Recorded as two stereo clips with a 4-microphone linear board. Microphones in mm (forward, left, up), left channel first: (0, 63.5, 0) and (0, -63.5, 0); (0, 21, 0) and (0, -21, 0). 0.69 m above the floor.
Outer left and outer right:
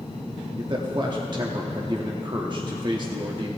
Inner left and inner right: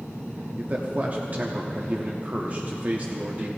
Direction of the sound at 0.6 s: 35° right (ahead or behind).